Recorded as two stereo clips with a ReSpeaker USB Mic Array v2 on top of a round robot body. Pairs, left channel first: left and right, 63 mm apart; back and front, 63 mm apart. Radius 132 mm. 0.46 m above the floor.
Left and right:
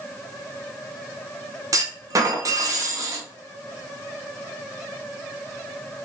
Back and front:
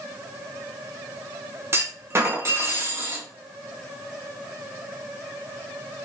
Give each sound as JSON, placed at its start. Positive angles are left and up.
{"t": 1.7, "sound": "a clunk", "azimuth_deg": -55, "distance_m": 0.7}